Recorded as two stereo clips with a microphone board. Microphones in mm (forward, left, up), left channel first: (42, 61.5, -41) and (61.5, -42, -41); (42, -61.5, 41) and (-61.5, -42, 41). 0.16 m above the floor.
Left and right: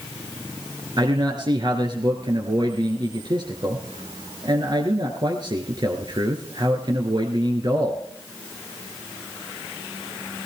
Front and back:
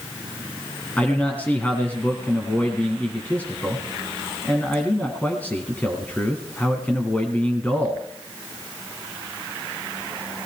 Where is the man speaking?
80° right, 1.8 m.